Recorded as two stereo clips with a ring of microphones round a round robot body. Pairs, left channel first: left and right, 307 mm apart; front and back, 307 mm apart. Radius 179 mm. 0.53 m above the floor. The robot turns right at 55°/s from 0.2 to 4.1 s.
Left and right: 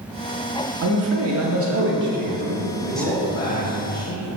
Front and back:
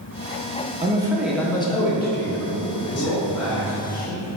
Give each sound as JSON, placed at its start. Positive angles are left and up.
{"t": 0.8, "sound": "a man speaking", "azimuth_deg": -115, "distance_m": 0.8}
{"t": 2.7, "sound": "a man speaking", "azimuth_deg": -25, "distance_m": 0.9}